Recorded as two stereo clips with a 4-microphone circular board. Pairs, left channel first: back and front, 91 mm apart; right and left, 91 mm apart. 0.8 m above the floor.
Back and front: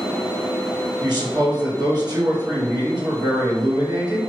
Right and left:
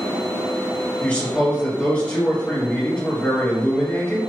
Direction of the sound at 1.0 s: 20° right.